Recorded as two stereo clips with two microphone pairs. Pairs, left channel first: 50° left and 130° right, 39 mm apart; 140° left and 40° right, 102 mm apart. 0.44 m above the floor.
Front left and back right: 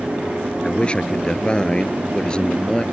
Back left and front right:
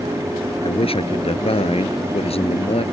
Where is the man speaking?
115° left; by 2.8 s 120° left.